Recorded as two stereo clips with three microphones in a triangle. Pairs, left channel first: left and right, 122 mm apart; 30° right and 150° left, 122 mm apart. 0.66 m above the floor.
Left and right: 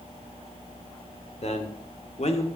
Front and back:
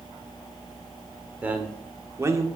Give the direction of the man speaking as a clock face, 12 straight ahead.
10 o'clock.